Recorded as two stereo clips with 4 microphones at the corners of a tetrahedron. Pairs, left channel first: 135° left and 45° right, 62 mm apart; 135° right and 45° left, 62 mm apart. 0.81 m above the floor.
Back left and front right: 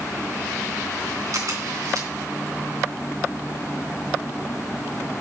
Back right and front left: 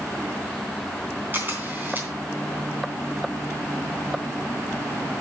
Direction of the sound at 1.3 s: 15° right.